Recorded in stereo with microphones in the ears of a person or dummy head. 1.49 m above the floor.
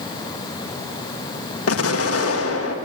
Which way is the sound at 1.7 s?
85° left.